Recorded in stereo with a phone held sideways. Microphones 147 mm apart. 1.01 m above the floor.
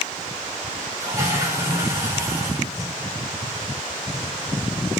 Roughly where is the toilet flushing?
Right.